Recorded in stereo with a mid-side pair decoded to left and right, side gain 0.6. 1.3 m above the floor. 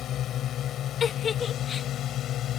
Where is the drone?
50° left.